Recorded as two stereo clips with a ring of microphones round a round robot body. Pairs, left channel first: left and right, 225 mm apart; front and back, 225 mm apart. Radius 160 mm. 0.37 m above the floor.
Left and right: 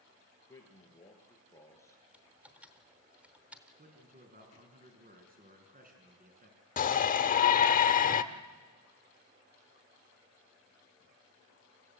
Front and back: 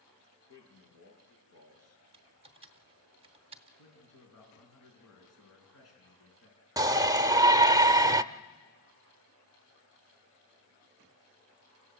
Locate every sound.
0.5 s a man speaking: 10° left, 6.5 m
2.1 s typing on a keyboard: 170° right, 1.0 m
3.8 s a man speaking: 40° right, 4.5 m
6.8 s a shout: 115° left, 0.9 m